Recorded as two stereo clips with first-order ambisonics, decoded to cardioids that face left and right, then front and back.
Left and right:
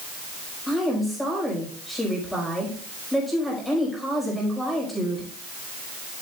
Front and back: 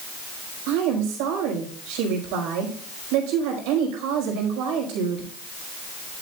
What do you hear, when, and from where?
0.7 s a woman speaking: 175° left, 5 m